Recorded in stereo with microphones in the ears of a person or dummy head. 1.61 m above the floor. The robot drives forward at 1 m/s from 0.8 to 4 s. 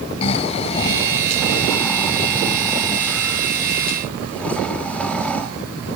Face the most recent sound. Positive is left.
turn(degrees=5)  # may be behind; listen again after turning